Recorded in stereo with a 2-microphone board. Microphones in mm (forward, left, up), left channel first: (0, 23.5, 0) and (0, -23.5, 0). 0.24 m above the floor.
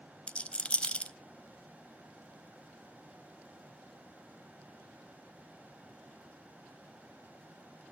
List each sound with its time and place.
0.3 s a rattle: 25° left (ahead or behind), 0.5 m